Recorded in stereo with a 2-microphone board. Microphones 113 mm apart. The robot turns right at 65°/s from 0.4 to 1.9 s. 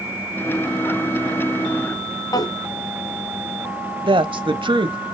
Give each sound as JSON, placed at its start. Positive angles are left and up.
{"t": 2.3, "sound": "a drawer", "side_deg": 35, "distance_m": 1.1}
{"t": 4.0, "sound": "a woman speaking", "side_deg": -50, "distance_m": 1.2}